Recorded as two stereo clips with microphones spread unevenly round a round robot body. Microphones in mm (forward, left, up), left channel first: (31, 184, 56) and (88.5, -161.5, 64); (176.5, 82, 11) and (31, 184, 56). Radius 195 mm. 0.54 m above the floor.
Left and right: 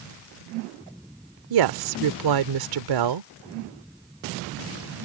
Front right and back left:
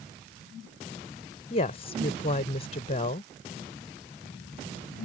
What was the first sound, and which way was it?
A woman speaking, 90° right.